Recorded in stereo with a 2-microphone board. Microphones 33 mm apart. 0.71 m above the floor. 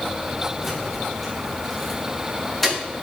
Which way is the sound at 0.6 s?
5° right (ahead or behind).